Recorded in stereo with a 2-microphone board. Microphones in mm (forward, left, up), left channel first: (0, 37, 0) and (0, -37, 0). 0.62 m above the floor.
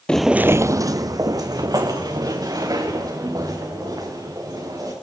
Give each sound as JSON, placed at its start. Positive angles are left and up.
{"t": 0.1, "sound": "footsteps", "side_deg": 10, "distance_m": 0.7}